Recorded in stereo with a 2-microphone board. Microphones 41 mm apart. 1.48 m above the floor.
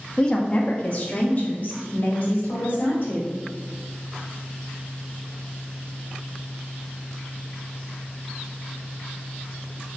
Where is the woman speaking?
15° left (ahead or behind), 0.8 m; by 3.3 s 45° left (ahead or behind), 3 m.